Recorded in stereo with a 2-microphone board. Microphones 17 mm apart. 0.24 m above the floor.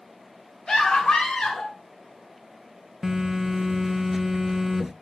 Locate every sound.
0.7 s a scream: 50° left (ahead or behind), 3 m; by 1.7 s 65° left (ahead or behind), 4 m
3.0 s a phone buzzing: 10° right (ahead or behind), 0.7 m